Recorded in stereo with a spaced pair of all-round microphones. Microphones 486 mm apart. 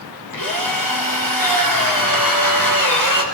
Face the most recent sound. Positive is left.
turn(degrees=45)  # may be behind; listen again after turning